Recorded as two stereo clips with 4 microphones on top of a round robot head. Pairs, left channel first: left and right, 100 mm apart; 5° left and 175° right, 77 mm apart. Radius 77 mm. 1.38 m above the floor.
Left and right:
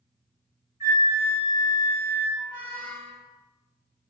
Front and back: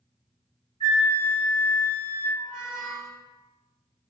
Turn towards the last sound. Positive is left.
turn(degrees=55)